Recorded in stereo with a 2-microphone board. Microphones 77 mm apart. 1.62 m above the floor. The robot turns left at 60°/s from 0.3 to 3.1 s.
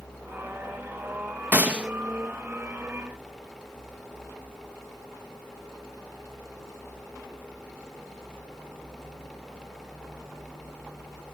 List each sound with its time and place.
1.5 s a gunshot: 20° right (ahead or behind), 1.0 m; by 1.9 s 10° right (ahead or behind), 1.0 m